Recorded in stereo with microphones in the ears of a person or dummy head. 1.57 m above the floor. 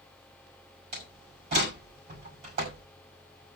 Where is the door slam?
55° right (ahead or behind), 6.5 m.